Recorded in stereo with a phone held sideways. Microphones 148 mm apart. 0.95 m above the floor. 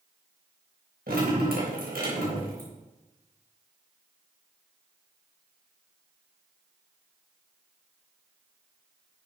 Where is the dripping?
85° right, 4.5 m.